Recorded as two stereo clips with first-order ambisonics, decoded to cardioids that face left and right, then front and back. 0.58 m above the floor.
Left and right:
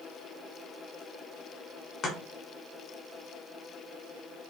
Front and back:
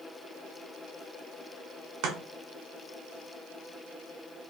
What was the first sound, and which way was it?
Chopping, 145° left.